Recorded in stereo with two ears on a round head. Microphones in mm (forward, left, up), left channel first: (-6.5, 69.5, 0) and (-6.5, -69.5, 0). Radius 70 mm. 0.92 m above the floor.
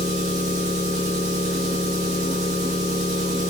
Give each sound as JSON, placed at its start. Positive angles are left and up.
{"t": 0.0, "sound": "an engine running", "side_deg": -50, "distance_m": 4.5}